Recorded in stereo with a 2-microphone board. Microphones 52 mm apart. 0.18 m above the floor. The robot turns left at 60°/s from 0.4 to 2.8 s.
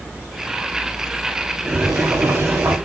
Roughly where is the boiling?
Ahead right.